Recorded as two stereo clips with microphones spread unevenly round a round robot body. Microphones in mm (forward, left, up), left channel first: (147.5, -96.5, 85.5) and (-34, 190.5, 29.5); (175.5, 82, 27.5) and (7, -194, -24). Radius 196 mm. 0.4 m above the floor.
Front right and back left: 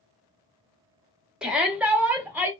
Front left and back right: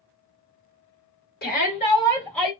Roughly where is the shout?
Left.